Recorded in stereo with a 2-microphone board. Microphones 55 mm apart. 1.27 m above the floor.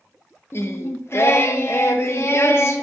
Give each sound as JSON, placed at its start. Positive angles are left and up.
{"t": 0.5, "sound": "singing", "side_deg": 45, "distance_m": 0.5}